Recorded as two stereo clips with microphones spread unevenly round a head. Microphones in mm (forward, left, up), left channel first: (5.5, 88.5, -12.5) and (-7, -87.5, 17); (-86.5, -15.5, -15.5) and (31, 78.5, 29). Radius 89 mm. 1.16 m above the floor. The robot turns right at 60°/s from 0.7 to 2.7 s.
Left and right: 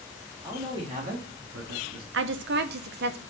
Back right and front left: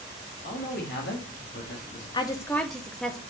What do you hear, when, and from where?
0.4 s a man speaking: 165° right, 1.7 m; by 2.0 s 85° right, 1.7 m
2.1 s a woman speaking: 100° right, 0.8 m; by 3.2 s 65° right, 0.8 m